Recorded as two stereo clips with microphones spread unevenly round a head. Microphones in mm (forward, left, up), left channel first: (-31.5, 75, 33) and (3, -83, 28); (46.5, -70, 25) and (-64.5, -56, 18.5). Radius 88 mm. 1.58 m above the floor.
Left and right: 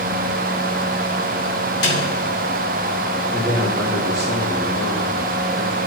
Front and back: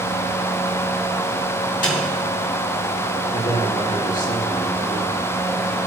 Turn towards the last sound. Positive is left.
turn(degrees=-5)